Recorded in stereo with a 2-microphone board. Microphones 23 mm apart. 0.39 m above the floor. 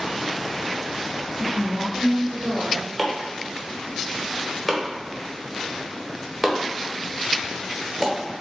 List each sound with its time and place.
1.4 s a woman speaking: 40° right (ahead or behind), 1.6 m
3.0 s chopping: 10° right (ahead or behind), 1.0 m